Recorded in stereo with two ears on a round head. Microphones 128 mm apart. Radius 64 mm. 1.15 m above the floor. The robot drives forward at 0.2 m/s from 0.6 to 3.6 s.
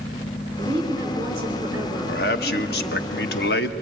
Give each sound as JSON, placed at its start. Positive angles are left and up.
{"t": 0.6, "sound": "a woman speaking", "side_deg": -20, "distance_m": 3.0}
{"t": 2.1, "sound": "a man speaking", "side_deg": 75, "distance_m": 1.4}